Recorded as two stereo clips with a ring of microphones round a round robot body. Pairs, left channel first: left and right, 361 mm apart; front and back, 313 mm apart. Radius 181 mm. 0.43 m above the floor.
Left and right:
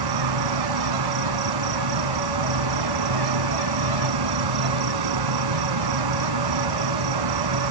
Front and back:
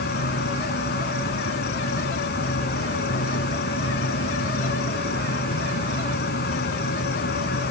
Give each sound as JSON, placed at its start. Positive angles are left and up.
{"t": 0.0, "sound": "an insect", "azimuth_deg": -65}